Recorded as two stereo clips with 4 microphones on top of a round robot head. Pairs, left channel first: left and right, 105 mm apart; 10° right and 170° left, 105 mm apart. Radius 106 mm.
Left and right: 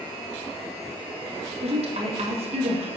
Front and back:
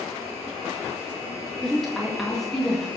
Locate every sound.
1.6 s a woman speaking: 100° right, 2.0 m